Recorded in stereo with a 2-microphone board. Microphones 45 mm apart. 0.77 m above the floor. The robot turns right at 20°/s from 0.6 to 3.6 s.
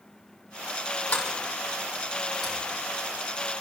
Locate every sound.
1.1 s a sliding door: 30° left (ahead or behind), 7.5 m; by 3.6 s 20° right (ahead or behind), 7.5 m